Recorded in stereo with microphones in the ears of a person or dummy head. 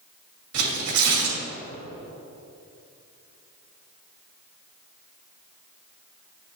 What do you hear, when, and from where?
0.5 s tearing paper: 75° right (ahead or behind), 2 m